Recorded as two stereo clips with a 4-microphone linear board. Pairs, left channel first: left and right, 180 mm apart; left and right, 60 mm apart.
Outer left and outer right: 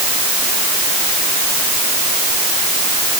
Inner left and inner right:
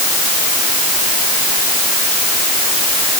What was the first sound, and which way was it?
Only background noise.